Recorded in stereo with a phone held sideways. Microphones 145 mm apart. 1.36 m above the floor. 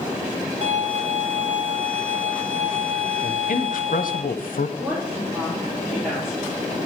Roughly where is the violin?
Right.